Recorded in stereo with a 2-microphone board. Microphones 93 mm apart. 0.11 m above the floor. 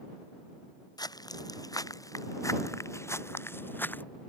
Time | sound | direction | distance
1.0 | footsteps | 45° left (ahead or behind) | ?